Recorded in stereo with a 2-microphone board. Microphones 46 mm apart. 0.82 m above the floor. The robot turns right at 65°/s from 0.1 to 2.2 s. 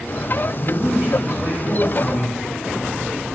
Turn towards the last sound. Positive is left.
turn(degrees=10)